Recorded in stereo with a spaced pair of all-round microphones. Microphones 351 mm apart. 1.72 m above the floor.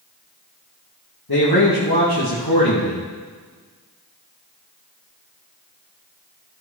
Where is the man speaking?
80° left, 2.5 m.